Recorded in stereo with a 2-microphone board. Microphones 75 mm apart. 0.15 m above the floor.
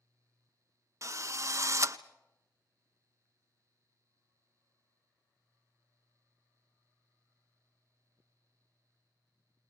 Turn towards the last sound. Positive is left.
turn(degrees=-40)  # may be behind; listen again after turning